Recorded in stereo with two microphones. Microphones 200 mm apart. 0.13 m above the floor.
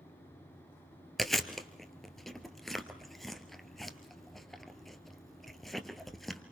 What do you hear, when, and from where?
1.2 s chewing: centre (ahead or behind), 1.5 m